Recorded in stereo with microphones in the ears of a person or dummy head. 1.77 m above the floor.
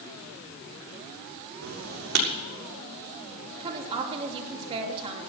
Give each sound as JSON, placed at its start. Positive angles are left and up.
{"t": 1.6, "sound": "writing", "side_deg": -55, "distance_m": 6.5}
{"t": 3.6, "sound": "a woman speaking", "side_deg": -35, "distance_m": 3.0}